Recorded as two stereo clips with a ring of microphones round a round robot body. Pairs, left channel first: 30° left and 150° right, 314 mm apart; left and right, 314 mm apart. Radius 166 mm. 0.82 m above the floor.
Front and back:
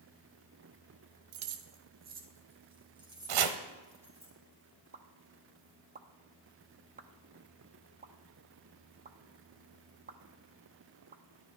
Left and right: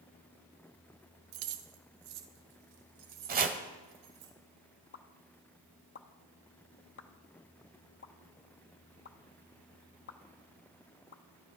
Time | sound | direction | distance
1.3 | keys jangling | 115° right | 0.9 m
3.3 | chopping | 150° right | 1.1 m
4.9 | a pop | 145° left | 0.8 m